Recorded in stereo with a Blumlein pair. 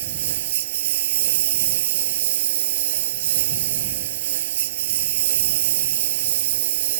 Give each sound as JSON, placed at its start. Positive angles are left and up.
{"t": 0.0, "sound": "a lawn mower", "azimuth_deg": -55}